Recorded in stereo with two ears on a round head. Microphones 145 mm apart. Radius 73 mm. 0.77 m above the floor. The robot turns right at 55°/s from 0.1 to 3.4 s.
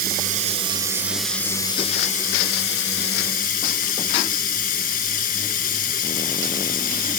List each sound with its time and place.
0.0 s running water: 65° right, 2 m; by 7.2 s 120° left, 2 m